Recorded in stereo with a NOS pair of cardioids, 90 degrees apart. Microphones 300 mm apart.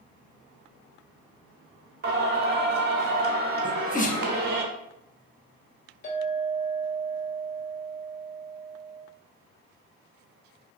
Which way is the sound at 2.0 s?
35° right.